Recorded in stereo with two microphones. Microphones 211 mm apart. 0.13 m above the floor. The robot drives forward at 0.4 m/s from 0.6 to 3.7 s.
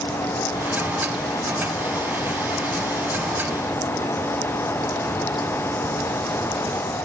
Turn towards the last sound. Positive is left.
No sound to turn to.